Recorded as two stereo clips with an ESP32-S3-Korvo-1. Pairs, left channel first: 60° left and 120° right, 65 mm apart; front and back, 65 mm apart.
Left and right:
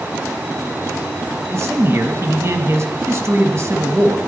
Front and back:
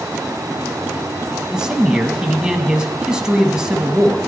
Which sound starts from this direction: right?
A man speaking, at 1.5 s.